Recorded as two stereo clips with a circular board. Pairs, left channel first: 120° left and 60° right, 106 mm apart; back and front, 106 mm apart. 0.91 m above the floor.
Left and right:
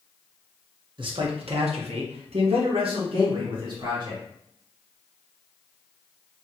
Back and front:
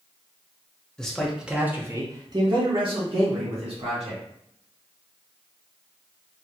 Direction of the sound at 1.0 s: 100° right.